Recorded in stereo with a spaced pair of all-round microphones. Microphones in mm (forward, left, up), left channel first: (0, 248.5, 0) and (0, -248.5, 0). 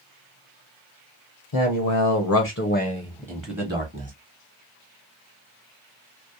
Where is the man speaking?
70° left (ahead or behind), 0.8 m; by 4.1 s 30° right (ahead or behind), 0.9 m.